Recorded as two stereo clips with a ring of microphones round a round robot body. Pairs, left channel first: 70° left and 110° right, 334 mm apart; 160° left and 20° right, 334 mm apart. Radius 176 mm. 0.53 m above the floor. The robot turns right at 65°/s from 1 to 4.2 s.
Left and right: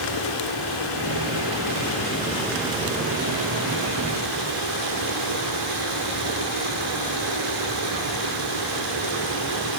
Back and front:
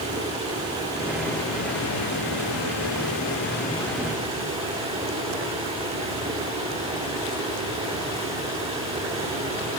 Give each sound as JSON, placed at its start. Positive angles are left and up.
{"t": 0.0, "sound": "running water", "azimuth_deg": 55, "distance_m": 8.5}